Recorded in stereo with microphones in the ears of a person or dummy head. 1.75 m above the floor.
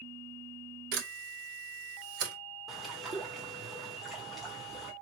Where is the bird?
Centre (ahead or behind), 1.1 m.